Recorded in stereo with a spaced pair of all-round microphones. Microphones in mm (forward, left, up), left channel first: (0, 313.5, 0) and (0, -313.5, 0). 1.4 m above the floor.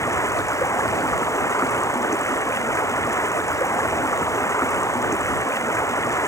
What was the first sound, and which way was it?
Running water, 5° left (ahead or behind).